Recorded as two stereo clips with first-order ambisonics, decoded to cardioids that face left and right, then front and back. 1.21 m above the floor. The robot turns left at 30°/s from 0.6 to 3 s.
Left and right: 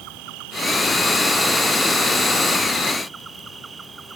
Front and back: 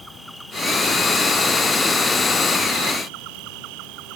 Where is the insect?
90° right; by 4.2 s 165° right.